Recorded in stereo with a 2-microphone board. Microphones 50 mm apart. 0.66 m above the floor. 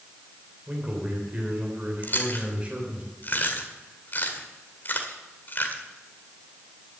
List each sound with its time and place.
0.7 s a man speaking: 30° right (ahead or behind), 3 m
2.0 s chewing: 45° left (ahead or behind), 2.0 m